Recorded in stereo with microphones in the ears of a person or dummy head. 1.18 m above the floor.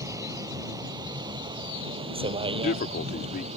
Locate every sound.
0.0 s a vehicle: 15° right (ahead or behind); by 3.6 s 35° right (ahead or behind)
2.5 s a man speaking: 50° left (ahead or behind)